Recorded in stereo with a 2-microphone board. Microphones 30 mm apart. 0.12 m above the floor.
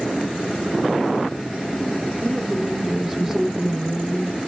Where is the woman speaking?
15° right (ahead or behind), 1.1 m.